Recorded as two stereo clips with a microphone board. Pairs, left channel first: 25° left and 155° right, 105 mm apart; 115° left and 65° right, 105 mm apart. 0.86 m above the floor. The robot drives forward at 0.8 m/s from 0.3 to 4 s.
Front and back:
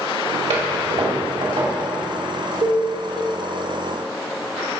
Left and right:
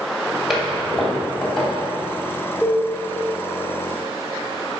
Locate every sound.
0.5 s a toilet flushing: 155° right, 2.5 m; by 1.7 s 160° right, 3.5 m
2.6 s a cowbell: 155° right, 3 m; by 2.8 s 160° right, 3 m